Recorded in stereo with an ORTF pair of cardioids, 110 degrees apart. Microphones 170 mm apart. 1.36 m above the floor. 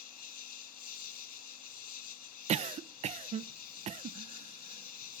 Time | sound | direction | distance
0.0 | an insect | 60° left | 1.6 m
2.5 | a cough | 45° right | 0.7 m